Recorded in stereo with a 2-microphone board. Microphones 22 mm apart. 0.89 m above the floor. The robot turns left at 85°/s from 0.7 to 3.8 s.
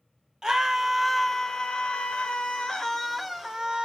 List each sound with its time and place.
0.4 s a scream: 150° right, 1.4 m; by 3.9 s 55° right, 1.4 m